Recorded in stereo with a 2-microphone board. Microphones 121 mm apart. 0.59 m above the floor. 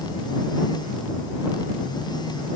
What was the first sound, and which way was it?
Only background noise.